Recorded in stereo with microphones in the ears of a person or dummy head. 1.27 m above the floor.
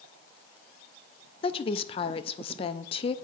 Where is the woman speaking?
25° left (ahead or behind), 0.5 m.